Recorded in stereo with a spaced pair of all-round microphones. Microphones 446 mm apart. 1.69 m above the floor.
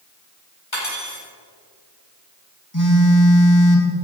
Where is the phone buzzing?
40° left (ahead or behind), 2.5 m.